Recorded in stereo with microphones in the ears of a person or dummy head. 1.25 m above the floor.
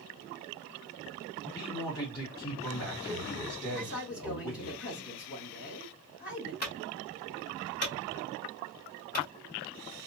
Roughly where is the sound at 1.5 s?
Left.